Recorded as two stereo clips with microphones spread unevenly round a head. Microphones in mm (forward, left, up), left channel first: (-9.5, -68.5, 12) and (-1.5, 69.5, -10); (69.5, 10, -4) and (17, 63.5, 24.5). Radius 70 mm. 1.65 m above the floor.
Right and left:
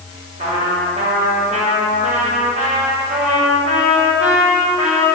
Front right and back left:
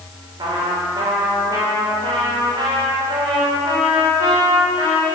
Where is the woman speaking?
No woman speaking in this recording.